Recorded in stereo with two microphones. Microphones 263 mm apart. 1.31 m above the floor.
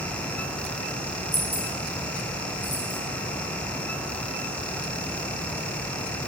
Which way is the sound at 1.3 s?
Centre (ahead or behind).